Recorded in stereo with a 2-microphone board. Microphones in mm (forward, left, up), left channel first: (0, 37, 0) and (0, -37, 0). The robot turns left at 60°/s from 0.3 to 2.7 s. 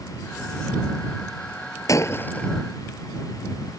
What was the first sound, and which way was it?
Breaking glass, 45° left.